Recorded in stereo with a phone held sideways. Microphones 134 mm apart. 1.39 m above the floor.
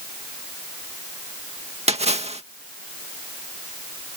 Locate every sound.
1.9 s a splash: 50° right (ahead or behind)